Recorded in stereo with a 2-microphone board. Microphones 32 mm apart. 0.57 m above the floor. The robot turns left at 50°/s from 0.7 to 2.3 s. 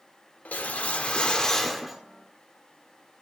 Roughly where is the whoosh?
Ahead left.